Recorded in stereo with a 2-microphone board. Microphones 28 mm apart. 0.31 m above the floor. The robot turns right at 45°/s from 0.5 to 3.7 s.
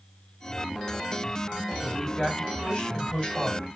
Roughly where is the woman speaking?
Ahead.